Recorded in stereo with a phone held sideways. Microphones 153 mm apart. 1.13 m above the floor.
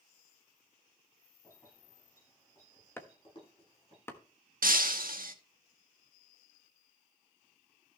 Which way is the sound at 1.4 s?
20° left (ahead or behind).